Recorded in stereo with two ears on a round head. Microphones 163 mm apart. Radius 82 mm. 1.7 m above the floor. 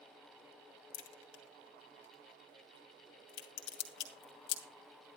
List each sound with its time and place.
0.9 s a crack: 70° left (ahead or behind), 2.5 m